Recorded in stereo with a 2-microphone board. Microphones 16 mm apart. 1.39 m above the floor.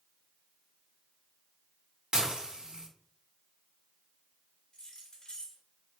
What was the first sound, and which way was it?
Dishes clattering, 65° right (ahead or behind).